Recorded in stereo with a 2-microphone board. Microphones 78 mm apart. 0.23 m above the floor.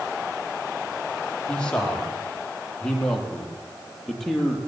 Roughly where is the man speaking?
Centre.